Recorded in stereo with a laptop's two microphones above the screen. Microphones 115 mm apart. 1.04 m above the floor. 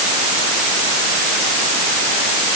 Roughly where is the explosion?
No explosion in this recording.